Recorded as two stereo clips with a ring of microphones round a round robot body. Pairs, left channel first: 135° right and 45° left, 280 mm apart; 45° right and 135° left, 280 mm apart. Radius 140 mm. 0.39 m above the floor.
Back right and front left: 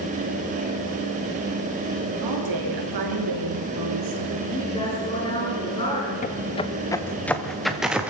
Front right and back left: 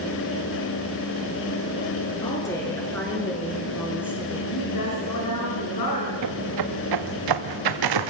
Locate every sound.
2.2 s a woman speaking: 30° left, 5.5 m; by 4.4 s 50° left, 5 m
4.5 s a woman speaking: 60° right, 6 m
6.2 s footsteps: 160° left, 1.5 m; by 8.1 s 130° left, 2.5 m